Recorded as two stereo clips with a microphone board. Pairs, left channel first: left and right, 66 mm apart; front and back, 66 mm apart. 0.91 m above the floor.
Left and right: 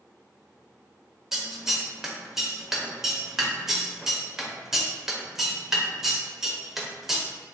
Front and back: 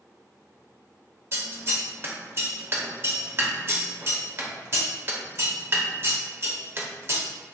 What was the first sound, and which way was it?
Scissors, 170° right.